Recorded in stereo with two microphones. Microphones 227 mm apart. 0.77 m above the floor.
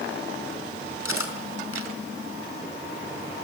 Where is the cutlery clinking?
75° left (ahead or behind), 4.5 m.